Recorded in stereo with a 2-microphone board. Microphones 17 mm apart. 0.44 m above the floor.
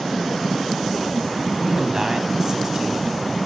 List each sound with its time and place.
1.6 s a man speaking: 30° right (ahead or behind), 4 m